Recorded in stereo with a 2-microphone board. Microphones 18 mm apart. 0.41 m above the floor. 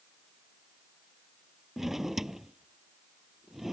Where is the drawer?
15° right (ahead or behind).